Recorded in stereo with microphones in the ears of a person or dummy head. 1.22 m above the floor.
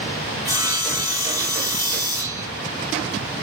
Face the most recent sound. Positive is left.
turn(degrees=35)  # may be behind; listen again after turning